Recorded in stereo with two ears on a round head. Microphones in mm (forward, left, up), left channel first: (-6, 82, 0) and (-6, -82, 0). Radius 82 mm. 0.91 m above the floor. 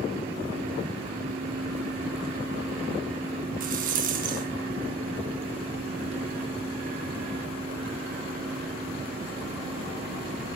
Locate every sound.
3.6 s a rattle: 45° right (ahead or behind), 4.5 m